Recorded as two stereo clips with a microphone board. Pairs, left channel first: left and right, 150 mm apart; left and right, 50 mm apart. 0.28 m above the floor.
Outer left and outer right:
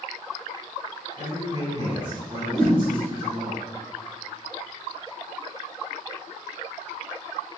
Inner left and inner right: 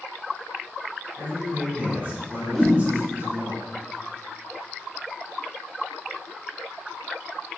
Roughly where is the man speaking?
Right.